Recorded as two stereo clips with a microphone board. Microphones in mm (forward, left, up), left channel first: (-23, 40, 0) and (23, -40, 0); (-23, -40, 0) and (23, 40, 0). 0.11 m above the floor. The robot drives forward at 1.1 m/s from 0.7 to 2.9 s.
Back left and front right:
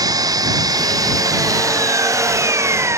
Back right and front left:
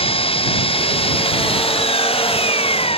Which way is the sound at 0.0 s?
110° right.